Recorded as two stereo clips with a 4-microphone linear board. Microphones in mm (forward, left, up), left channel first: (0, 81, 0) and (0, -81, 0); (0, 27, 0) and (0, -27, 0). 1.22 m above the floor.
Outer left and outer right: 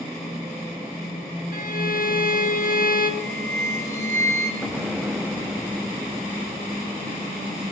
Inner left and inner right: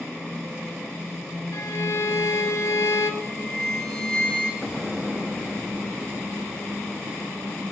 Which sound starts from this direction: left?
A violin, at 1.5 s.